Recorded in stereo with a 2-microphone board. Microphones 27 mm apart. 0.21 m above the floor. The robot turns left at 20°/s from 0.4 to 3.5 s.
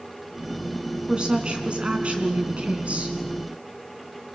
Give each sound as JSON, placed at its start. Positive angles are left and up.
{"t": 1.1, "sound": "a woman speaking", "azimuth_deg": -45, "distance_m": 2.5}